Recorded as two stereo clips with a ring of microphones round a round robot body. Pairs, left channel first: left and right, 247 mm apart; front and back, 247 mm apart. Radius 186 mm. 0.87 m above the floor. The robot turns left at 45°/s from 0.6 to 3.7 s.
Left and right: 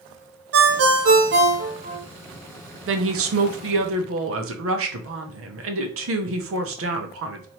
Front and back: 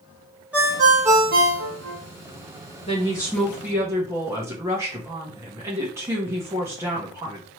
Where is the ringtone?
95° right, 0.7 m; by 2.0 s 160° right, 0.7 m.